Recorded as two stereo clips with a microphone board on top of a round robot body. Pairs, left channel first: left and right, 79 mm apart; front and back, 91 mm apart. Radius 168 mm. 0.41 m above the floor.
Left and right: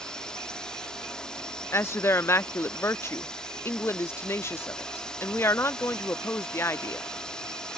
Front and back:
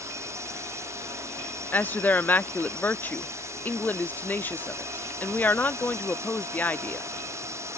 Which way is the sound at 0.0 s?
165° left.